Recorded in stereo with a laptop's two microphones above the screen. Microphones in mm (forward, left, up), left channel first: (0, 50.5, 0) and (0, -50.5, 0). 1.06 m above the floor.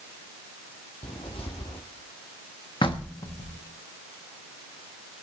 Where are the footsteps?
65° left (ahead or behind), 2.5 m.